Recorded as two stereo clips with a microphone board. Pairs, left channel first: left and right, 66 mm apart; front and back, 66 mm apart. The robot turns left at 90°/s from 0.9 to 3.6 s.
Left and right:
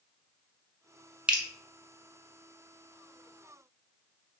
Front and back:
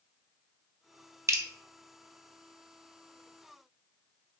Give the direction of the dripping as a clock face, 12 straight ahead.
5 o'clock.